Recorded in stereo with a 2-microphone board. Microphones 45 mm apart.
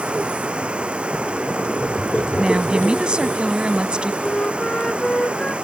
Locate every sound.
0.0 s running water: 25° right (ahead or behind)
2.4 s a woman speaking: 20° right (ahead or behind)
4.2 s a flute: 20° left (ahead or behind)